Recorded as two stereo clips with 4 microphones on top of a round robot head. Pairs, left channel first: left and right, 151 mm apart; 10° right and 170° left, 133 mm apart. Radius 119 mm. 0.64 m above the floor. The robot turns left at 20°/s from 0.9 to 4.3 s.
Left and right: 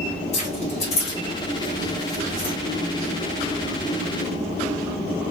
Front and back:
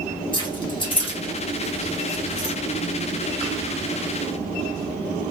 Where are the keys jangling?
45° left, 1.3 m; by 2.5 s 10° left, 1.3 m.